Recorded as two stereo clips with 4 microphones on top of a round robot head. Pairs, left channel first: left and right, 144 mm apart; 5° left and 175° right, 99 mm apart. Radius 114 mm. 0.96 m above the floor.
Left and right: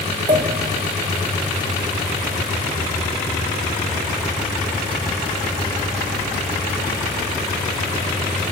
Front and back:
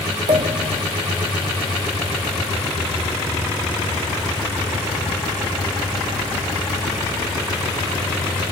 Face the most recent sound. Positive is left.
turn(degrees=-150)